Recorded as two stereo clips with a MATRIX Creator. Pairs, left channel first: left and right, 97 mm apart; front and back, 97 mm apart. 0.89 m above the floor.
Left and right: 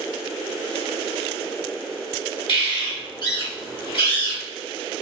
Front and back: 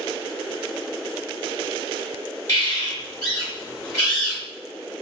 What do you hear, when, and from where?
2.5 s a bird: 55° left, 1.9 m